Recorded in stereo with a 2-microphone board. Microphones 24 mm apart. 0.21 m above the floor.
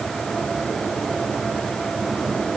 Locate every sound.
Only background noise.